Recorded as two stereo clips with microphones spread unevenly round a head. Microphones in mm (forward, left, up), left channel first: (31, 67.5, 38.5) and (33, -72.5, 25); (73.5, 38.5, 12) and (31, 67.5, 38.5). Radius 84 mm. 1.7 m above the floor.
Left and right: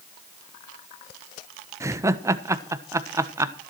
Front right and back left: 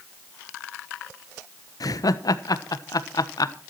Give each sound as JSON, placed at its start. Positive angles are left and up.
{"t": 1.8, "sound": "laughter", "azimuth_deg": -15, "distance_m": 1.2}